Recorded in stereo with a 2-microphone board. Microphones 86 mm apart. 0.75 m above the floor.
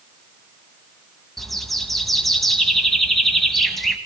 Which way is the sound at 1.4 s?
Centre (ahead or behind).